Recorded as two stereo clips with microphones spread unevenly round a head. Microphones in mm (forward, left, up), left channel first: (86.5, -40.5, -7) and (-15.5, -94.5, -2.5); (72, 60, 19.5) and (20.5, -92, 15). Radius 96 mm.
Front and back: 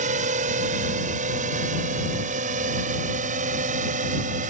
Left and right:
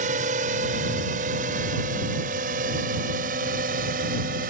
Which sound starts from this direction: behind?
A drone, at 0.0 s.